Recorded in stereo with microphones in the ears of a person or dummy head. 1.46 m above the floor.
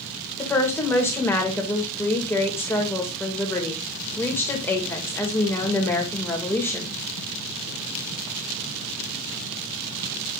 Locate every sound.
0.4 s a woman speaking: 10° left (ahead or behind), 2.5 m